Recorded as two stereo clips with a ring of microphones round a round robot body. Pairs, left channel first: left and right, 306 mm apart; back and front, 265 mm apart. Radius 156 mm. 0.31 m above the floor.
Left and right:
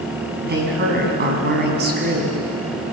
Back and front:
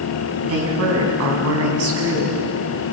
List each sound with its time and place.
0.4 s a woman speaking: 35° right, 3.5 m